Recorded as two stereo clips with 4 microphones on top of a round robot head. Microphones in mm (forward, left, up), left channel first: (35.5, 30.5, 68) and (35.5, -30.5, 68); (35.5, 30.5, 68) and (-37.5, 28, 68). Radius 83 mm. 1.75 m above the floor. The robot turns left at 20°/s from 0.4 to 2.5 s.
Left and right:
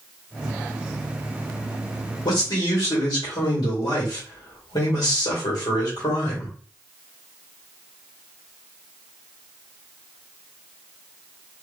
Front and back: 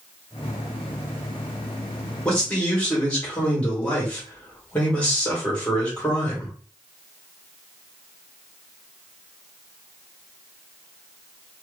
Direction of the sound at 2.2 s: 80° left.